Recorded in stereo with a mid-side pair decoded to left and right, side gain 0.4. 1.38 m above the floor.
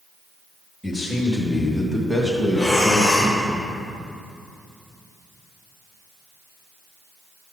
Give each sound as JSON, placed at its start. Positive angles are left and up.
{"t": 0.8, "sound": "a man speaking", "azimuth_deg": 10, "distance_m": 2.5}
{"t": 2.5, "sound": "breathing", "azimuth_deg": 0, "distance_m": 2.5}